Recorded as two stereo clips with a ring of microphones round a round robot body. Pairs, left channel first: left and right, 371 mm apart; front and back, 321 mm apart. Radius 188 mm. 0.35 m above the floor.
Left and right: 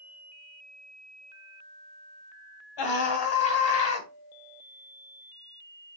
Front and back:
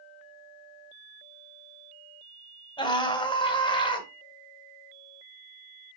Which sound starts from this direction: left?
A scream, at 2.8 s.